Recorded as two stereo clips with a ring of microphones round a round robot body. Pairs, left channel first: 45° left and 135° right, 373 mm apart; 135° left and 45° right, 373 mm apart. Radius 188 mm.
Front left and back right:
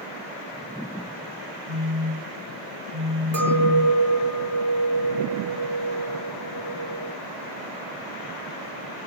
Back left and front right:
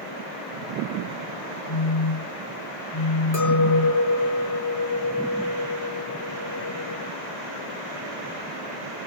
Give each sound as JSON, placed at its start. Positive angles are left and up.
{"t": 1.7, "sound": "a phone buzzing", "azimuth_deg": 165, "distance_m": 5.0}
{"t": 3.3, "sound": "a clink", "azimuth_deg": -175, "distance_m": 4.5}